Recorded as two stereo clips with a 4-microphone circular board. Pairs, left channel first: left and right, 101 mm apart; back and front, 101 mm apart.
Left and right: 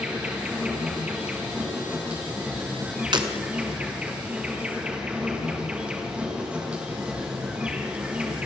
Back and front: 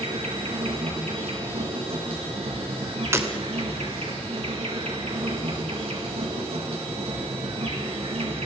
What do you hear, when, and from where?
0.0 s an insect: 10° right, 4 m
3.1 s breaking glass: 60° right, 2.5 m